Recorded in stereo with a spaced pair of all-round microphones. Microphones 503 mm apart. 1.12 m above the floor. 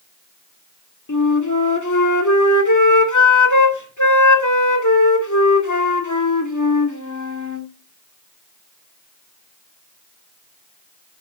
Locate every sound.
1.1 s a flute: 35° left (ahead or behind), 2 m